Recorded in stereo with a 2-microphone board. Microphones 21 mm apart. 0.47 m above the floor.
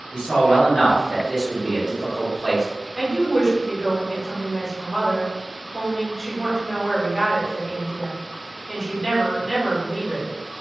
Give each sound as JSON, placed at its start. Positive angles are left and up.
{"t": 0.1, "sound": "a man speaking", "side_deg": 30, "distance_m": 1.6}
{"t": 3.0, "sound": "a woman speaking", "side_deg": 35, "distance_m": 1.4}